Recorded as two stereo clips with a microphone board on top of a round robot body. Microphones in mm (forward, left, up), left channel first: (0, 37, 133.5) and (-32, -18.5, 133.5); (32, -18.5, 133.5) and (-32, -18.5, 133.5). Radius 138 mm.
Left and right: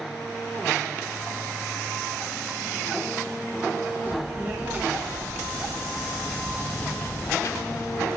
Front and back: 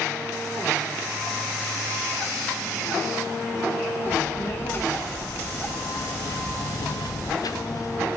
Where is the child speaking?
65° right, 2 m; by 8.1 s 40° left, 1.1 m.